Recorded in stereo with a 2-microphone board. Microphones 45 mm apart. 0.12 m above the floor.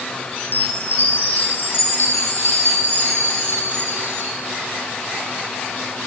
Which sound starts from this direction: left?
A chime, at 0.4 s.